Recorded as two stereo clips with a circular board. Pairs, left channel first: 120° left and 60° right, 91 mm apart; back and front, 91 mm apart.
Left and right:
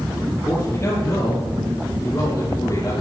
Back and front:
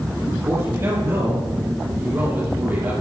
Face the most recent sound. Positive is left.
turn(degrees=70)